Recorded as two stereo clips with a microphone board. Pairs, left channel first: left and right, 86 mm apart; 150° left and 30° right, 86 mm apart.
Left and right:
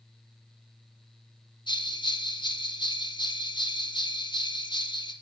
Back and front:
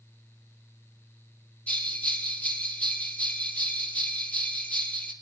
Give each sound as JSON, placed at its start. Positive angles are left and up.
{"t": 1.7, "sound": "a bell", "azimuth_deg": 75, "distance_m": 3.0}